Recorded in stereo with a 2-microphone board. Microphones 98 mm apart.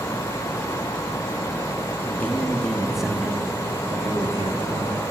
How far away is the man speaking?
About 1.8 m.